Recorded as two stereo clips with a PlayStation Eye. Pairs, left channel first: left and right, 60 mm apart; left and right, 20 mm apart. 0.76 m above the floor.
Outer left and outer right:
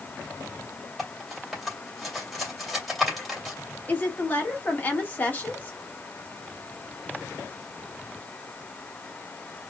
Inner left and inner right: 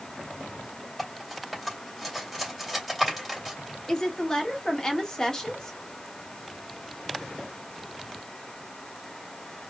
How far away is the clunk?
No clunk in this recording.